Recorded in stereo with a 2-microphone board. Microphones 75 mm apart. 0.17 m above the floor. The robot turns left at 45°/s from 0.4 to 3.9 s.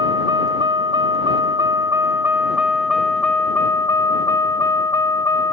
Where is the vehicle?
65° right; by 5.5 s 135° left.